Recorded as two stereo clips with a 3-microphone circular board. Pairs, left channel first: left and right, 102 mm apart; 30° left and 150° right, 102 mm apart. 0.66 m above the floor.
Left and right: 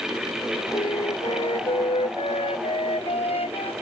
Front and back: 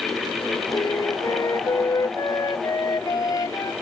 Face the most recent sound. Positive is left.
turn(degrees=80)